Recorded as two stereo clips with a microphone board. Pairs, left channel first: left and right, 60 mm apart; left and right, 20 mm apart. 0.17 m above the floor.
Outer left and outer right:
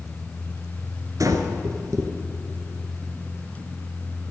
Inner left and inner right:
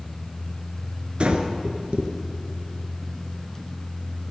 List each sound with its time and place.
1.2 s breathing: 60° right (ahead or behind), 1.4 m